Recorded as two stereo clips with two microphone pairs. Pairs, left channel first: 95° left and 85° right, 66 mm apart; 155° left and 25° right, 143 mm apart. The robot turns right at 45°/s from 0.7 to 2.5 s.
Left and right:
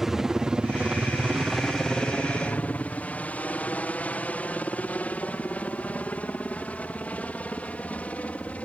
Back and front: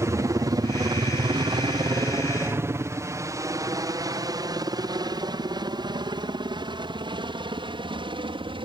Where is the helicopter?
15° right; by 8.7 s 25° left.